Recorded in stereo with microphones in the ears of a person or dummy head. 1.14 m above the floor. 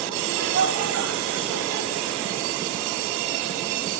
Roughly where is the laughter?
Right.